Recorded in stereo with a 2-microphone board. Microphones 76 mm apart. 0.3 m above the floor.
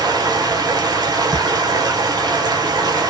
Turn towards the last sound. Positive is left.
turn(degrees=-60)  # may be behind; listen again after turning